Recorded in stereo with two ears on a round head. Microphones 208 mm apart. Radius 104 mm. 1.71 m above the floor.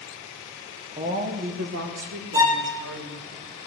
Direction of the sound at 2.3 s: 15° right (ahead or behind).